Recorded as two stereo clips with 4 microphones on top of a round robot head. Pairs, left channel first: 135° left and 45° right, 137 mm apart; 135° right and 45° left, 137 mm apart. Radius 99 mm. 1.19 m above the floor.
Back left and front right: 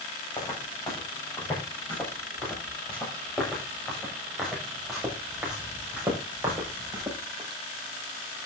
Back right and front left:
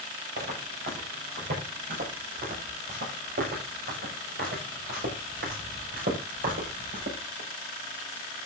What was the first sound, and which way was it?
Footsteps, 70° left.